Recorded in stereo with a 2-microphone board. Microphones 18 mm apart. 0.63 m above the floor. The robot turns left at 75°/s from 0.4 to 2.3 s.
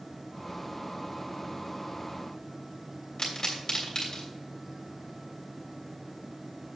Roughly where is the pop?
Left.